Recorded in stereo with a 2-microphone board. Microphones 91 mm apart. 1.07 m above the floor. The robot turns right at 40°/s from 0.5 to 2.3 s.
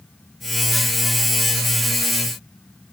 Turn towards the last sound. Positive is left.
No sound to turn to.